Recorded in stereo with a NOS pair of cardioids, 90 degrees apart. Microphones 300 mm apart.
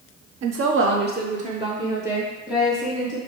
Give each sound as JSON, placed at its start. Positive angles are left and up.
{"t": 0.4, "sound": "a woman speaking", "azimuth_deg": -60, "distance_m": 0.7}